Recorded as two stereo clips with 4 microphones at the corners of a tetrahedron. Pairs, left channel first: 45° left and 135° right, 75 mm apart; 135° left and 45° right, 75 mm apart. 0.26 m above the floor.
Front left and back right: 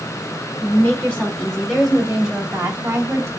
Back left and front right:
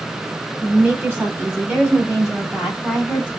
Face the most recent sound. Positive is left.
turn(degrees=-135)